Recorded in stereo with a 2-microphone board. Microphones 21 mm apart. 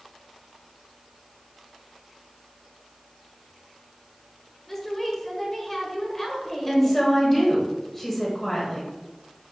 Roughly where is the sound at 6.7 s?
Centre.